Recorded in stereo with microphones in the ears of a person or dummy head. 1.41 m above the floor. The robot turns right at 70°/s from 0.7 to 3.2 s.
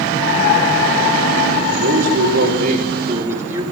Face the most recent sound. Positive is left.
turn(degrees=-20)